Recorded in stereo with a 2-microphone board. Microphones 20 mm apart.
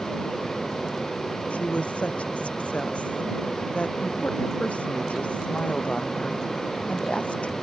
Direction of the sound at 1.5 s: 75° left (ahead or behind).